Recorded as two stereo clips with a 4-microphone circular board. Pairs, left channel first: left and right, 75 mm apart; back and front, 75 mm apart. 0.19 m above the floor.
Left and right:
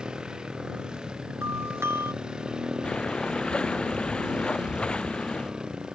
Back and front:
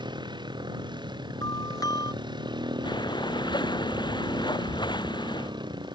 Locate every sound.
0.0 s a motorcycle: 10° right
1.4 s a doorbell: 145° right
2.8 s breathing: 165° left